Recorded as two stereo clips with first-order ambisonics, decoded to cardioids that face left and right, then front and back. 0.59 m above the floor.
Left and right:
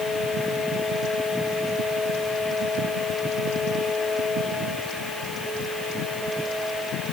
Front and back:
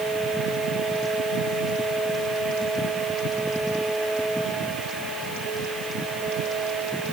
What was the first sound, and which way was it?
Only background noise.